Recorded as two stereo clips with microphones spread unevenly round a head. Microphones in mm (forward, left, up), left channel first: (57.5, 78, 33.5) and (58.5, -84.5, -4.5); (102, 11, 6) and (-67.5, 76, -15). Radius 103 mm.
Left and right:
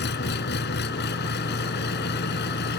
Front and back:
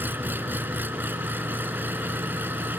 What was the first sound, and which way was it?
An engine running, 80° left.